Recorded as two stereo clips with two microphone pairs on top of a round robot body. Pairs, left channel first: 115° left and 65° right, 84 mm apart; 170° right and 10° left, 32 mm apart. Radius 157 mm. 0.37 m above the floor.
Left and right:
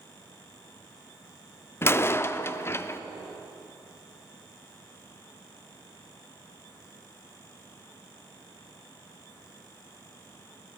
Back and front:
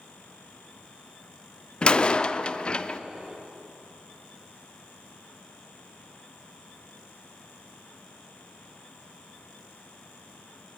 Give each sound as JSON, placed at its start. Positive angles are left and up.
{"t": 1.8, "sound": "a door slam", "azimuth_deg": 175, "distance_m": 0.5}